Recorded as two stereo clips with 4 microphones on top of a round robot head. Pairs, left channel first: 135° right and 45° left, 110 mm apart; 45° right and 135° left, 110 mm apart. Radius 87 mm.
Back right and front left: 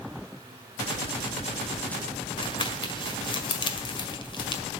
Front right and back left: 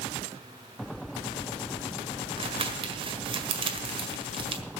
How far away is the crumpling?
About 1.7 m.